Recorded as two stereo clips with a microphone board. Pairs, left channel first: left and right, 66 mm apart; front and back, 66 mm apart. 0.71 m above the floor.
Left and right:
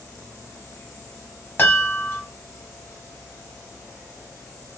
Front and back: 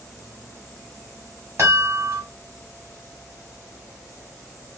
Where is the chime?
140° left, 1.5 m.